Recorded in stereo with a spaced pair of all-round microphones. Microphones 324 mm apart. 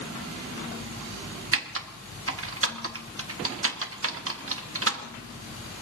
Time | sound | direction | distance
1.5 | typing on a keyboard | 45° right (ahead or behind) | 0.9 m